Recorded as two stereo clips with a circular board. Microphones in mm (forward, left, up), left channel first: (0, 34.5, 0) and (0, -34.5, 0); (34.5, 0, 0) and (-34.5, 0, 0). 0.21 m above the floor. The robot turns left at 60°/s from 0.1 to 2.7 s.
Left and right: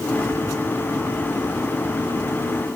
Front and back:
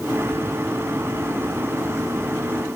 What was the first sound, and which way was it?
Only background noise.